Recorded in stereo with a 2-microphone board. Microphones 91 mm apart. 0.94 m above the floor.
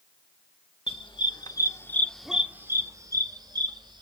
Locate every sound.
0.9 s a dog barking: 65° left (ahead or behind), 1.5 m; by 4.0 s 55° right (ahead or behind), 2 m